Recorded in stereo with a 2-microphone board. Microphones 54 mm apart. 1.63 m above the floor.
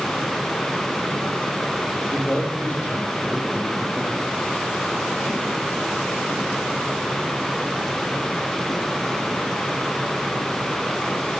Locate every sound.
2.1 s a man speaking: 40° left (ahead or behind), 3.5 m; by 4.3 s 30° left (ahead or behind), 5 m